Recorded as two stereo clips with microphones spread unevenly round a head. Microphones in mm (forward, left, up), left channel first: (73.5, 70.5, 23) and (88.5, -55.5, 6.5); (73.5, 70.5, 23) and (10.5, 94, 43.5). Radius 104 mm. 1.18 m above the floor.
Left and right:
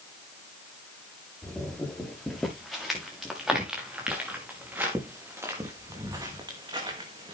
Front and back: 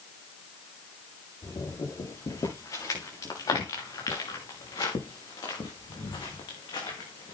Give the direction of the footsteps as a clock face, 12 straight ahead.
12 o'clock.